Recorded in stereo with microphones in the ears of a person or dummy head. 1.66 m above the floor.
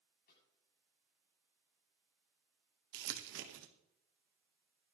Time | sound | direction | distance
0.3 | a snare drum | 70° left (ahead or behind) | 7 m
2.9 | crumpling | 65° right (ahead or behind) | 1.4 m